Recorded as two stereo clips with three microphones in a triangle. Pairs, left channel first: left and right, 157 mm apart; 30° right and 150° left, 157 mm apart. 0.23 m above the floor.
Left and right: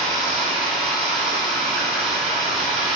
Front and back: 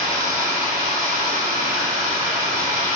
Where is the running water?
175° right, 1.2 m.